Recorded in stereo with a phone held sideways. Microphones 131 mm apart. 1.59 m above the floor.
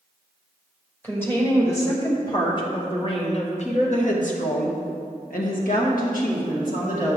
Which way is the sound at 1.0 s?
15° left (ahead or behind).